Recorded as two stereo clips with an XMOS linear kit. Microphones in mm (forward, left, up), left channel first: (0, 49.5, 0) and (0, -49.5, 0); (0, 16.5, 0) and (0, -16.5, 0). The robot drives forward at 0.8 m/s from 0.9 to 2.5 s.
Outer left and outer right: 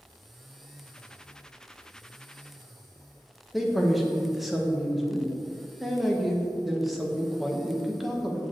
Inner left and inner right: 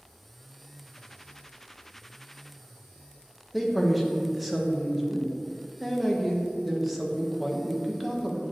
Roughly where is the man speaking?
Centre.